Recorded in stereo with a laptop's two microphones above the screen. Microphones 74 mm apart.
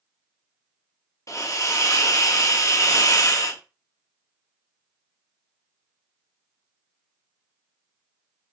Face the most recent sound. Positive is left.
turn(degrees=45)  # may be behind; listen again after turning